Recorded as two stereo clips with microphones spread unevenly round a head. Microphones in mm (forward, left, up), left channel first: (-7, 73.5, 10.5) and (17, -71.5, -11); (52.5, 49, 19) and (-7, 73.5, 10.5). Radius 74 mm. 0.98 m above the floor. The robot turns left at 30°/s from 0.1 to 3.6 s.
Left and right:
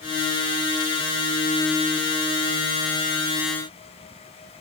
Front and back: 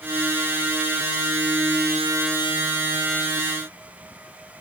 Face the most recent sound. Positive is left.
No sound to turn to.